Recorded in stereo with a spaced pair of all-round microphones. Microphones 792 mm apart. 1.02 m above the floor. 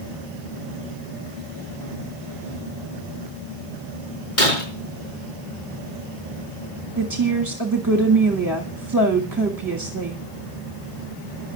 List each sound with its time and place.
4.4 s breaking glass: 75° left (ahead or behind), 5.5 m
7.0 s a woman speaking: 25° right (ahead or behind), 1.9 m